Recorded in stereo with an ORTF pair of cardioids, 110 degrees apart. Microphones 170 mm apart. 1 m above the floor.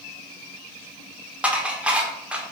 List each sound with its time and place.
1.4 s dishes clattering: 5° right, 2 m